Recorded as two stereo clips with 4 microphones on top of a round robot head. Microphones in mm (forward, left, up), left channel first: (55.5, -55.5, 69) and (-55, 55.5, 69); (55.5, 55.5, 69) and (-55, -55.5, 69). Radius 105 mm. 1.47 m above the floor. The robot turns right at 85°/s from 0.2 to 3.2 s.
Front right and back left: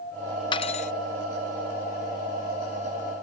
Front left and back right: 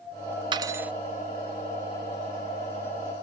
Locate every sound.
0.5 s cutlery clinking: 90° right; by 0.9 s 55° right